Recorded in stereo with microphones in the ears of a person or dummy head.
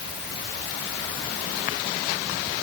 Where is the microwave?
No microwave in this recording.